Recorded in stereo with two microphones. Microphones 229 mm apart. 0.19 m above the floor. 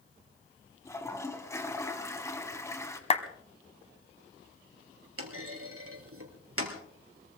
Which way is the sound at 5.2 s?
70° right (ahead or behind).